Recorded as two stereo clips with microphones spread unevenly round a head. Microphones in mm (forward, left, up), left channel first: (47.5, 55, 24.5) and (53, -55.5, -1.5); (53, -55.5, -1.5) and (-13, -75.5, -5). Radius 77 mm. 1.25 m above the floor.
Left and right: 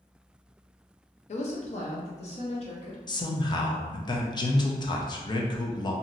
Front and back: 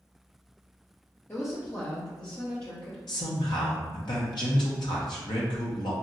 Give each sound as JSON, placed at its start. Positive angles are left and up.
{"t": 1.3, "sound": "a woman speaking", "azimuth_deg": 85, "distance_m": 0.6}
{"t": 3.1, "sound": "a man speaking", "azimuth_deg": 45, "distance_m": 0.6}